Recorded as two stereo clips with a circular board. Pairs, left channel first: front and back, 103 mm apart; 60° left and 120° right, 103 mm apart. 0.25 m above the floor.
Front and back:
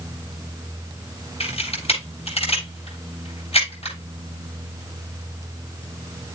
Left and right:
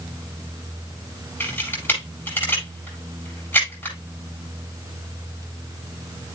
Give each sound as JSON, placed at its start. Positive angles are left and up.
{"t": 1.4, "sound": "a camera shutter", "azimuth_deg": -10, "distance_m": 8.5}